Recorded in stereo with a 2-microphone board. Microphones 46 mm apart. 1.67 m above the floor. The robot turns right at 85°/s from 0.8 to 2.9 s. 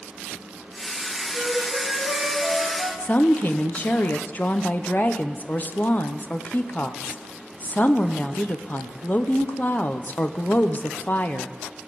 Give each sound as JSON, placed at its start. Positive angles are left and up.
{"t": 1.3, "sound": "a flute", "azimuth_deg": -160, "distance_m": 3.5}
{"t": 3.0, "sound": "a woman speaking", "side_deg": 35, "distance_m": 0.8}